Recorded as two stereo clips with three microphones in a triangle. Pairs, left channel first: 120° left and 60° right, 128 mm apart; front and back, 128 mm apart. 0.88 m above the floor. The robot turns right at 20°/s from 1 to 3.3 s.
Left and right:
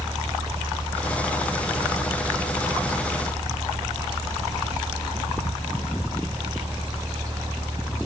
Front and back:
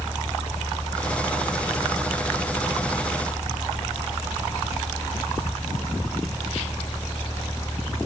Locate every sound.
Only background noise.